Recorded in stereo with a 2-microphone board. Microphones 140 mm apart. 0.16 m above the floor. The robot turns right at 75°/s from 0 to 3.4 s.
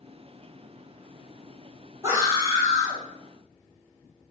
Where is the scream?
20° right (ahead or behind), 1.0 m; by 3.0 s 15° right (ahead or behind), 1.0 m.